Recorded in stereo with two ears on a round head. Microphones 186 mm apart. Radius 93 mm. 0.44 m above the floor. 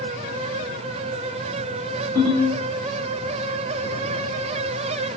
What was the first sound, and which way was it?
A ringtone, 25° left (ahead or behind).